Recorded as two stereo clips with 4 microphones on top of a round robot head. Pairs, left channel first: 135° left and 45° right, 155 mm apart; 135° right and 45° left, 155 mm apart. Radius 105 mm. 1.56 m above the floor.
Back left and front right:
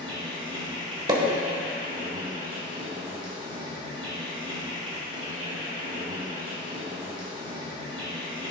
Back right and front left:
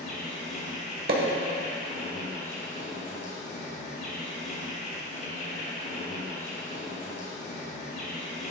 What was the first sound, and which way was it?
An insect, 100° right.